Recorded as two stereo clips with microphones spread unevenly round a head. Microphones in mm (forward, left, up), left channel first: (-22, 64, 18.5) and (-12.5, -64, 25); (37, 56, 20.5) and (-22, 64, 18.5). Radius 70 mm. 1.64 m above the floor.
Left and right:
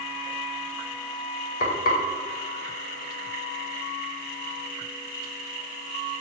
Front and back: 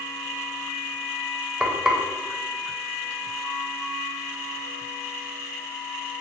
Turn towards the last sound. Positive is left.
turn(degrees=95)